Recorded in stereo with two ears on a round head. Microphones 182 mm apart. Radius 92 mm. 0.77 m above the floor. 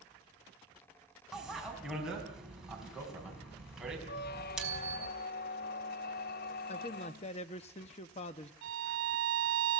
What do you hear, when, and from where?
1.3 s a bicycle bell: centre (ahead or behind), 4.5 m
4.1 s a squeak: 50° left (ahead or behind), 0.6 m
6.7 s a man speaking: 30° left (ahead or behind), 0.7 m
8.6 s a violin: 65° right (ahead or behind), 2.5 m